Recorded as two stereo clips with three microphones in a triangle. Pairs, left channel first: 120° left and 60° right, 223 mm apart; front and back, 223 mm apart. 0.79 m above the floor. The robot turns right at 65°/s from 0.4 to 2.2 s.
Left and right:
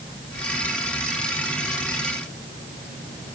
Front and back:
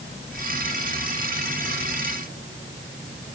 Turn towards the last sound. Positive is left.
No sound to turn to.